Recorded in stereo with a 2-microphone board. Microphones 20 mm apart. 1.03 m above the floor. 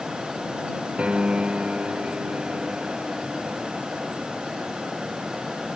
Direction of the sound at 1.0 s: 85° right.